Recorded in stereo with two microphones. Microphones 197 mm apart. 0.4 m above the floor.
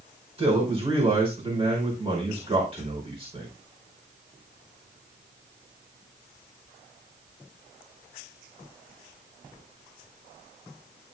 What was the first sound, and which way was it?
A man speaking, 30° right (ahead or behind).